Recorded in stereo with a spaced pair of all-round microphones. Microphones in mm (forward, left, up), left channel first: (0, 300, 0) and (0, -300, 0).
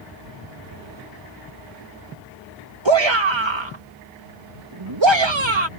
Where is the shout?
45° right (ahead or behind).